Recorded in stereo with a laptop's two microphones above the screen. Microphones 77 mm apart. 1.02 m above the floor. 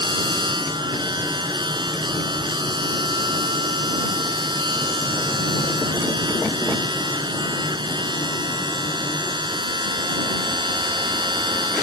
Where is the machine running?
80° right.